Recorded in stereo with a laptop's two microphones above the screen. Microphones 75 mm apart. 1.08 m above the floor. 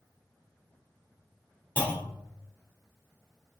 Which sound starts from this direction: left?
A clunk, at 1.8 s.